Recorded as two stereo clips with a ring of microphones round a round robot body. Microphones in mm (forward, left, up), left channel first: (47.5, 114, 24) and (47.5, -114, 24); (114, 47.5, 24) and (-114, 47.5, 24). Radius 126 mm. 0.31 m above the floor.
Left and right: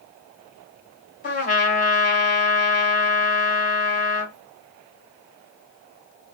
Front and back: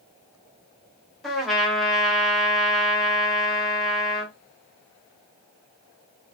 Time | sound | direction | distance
1.2 | a trumpet | 90° left | 1.7 m